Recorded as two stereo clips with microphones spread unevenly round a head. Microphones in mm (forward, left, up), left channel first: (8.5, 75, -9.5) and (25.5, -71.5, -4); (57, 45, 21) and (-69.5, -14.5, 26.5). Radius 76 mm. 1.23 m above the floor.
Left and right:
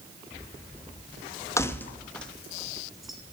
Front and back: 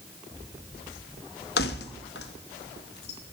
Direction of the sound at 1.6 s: 25° left.